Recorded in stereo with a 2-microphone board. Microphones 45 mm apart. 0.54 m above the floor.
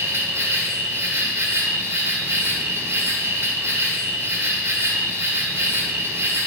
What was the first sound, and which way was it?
An insect, 60° right (ahead or behind).